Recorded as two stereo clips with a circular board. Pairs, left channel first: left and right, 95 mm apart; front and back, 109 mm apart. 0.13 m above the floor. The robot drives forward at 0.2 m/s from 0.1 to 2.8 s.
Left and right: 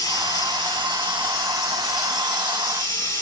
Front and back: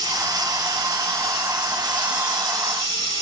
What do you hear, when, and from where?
0.0 s running water: 135° left, 2.5 m; by 3.2 s 145° left, 2.5 m